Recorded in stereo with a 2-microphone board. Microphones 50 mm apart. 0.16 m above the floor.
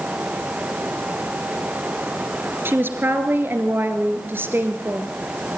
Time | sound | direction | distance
2.6 | a woman speaking | 50° right (ahead or behind) | 2.5 m